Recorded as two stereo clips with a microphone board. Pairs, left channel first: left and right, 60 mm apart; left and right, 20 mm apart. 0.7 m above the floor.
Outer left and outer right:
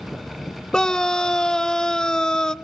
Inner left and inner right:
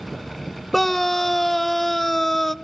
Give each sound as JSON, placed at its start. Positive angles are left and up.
{"t": 0.7, "sound": "a scream", "side_deg": 10, "distance_m": 0.6}